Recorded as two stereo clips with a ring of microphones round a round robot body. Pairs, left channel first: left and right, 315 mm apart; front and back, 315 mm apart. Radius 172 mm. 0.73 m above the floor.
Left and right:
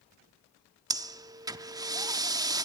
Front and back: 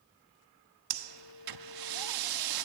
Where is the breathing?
170° right, 1.1 m.